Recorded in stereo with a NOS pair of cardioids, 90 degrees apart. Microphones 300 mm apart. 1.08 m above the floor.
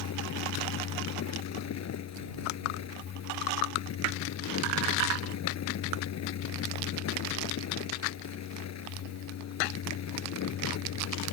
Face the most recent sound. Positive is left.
turn(degrees=60)